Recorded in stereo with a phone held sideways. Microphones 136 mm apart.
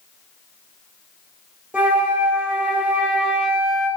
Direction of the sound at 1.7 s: 10° right (ahead or behind).